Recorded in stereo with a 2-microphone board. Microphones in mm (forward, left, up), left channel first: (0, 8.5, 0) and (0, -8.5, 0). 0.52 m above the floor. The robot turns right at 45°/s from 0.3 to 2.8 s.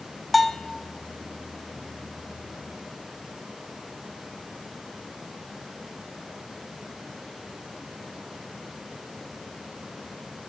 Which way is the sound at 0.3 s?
10° left (ahead or behind).